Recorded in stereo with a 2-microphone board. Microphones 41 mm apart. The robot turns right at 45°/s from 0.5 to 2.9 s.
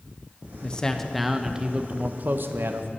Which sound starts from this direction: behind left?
A man speaking, at 0.6 s.